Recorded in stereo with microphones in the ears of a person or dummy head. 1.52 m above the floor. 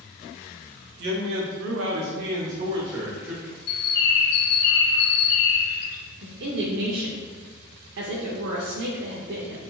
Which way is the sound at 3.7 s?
55° left (ahead or behind).